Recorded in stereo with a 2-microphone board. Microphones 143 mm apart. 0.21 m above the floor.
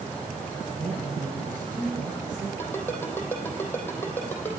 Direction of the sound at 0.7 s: 70° right (ahead or behind).